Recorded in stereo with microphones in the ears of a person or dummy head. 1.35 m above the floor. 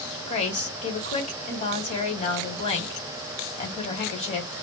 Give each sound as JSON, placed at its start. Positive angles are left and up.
{"t": 0.3, "sound": "a woman speaking", "side_deg": 35, "distance_m": 1.3}